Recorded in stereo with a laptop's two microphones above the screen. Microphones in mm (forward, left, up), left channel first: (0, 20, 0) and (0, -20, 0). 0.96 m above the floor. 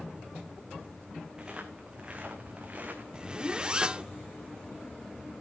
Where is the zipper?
20° right (ahead or behind), 0.7 m.